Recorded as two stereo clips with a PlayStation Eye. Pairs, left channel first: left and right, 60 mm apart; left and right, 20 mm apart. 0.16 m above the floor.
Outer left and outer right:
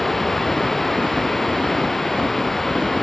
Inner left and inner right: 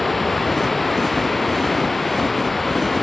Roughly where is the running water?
Centre.